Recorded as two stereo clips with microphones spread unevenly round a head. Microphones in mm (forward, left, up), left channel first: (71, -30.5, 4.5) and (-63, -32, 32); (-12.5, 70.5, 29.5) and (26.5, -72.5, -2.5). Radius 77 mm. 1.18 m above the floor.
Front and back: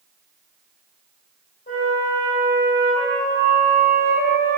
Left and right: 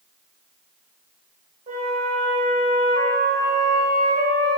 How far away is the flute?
About 1.8 m.